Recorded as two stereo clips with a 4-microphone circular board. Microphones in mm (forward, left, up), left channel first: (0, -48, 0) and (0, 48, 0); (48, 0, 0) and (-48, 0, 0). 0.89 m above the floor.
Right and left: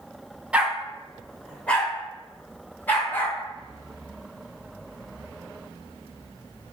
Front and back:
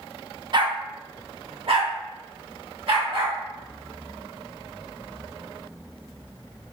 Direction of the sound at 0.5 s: 165° left.